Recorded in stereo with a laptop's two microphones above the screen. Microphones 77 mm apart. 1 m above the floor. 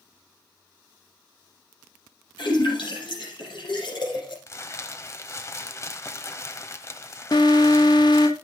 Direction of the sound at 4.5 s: 35° left (ahead or behind).